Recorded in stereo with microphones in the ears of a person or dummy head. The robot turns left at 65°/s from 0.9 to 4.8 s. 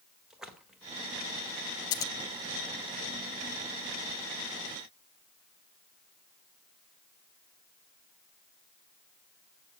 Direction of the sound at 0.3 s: Centre (ahead or behind).